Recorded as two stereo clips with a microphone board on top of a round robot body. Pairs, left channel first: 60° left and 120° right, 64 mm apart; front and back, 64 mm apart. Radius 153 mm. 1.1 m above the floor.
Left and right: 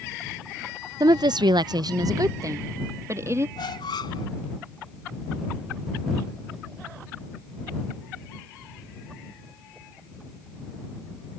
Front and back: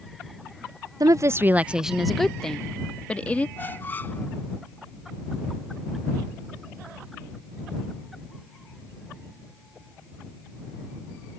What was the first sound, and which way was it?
A woman speaking, 150° right.